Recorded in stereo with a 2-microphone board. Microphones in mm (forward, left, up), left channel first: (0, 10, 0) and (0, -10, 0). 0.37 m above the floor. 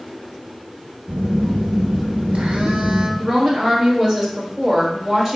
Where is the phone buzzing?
80° right, 1.0 m.